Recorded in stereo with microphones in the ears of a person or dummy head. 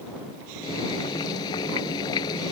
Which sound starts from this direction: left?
Boiling, at 0.6 s.